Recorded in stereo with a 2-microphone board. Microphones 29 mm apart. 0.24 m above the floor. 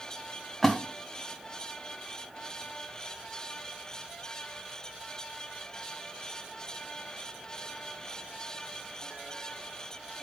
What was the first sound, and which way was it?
A splash, 15° left (ahead or behind).